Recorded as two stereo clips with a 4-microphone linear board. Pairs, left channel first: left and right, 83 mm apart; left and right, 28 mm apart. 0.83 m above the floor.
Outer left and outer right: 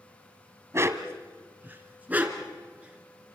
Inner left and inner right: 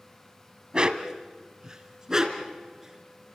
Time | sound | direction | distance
0.7 | a dog barking | 35° right (ahead or behind) | 1.4 m